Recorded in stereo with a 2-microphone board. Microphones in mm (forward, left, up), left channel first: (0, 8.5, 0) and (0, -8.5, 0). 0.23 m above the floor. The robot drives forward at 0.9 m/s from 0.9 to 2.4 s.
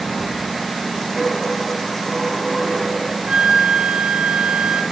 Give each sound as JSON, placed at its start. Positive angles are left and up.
{"t": 1.2, "sound": "a dropped coin", "side_deg": 30, "distance_m": 1.0}
{"t": 3.3, "sound": "a flute", "side_deg": -70, "distance_m": 0.6}